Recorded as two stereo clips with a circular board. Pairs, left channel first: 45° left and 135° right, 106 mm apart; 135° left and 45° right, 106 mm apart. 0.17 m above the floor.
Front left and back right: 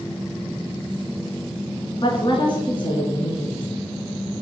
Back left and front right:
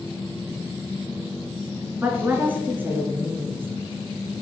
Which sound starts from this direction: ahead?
A woman speaking, at 2.0 s.